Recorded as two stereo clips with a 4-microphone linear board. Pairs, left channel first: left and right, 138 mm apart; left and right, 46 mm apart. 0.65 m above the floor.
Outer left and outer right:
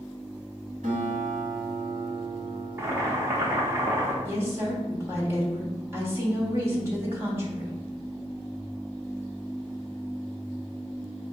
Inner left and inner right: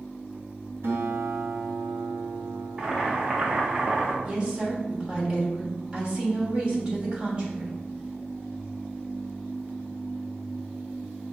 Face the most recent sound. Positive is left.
turn(degrees=-20)  # may be behind; listen again after turning